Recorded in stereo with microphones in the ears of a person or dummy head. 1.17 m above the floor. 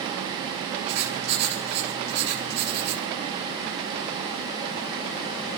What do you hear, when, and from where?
0.9 s writing: 60° right (ahead or behind), 3 m